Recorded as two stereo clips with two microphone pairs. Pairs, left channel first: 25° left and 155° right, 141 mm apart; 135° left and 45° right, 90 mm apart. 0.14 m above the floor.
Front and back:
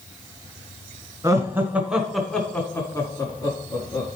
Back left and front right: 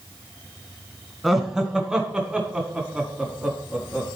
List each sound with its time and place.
1.2 s laughter: 125° right, 1.6 m; by 4.1 s 20° left, 1.8 m